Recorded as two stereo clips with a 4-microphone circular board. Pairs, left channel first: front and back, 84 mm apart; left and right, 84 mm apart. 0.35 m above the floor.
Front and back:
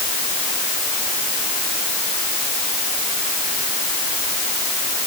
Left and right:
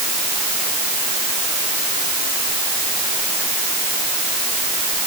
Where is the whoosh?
No whoosh in this recording.